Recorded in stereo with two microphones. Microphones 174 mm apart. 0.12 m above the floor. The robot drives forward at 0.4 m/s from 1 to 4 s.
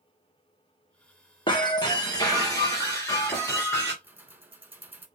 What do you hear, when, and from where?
1.5 s breaking glass: 25° left (ahead or behind), 1.1 m; by 3.9 s 15° left (ahead or behind), 2.0 m
4.0 s keys jangling: 10° right (ahead or behind), 1.1 m